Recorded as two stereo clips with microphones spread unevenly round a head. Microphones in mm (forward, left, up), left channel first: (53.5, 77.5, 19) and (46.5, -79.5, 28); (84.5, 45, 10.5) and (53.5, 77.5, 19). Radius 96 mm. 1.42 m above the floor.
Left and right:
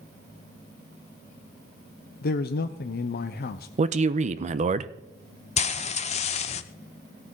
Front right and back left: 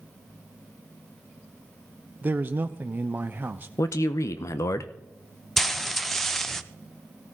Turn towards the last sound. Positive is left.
turn(degrees=40)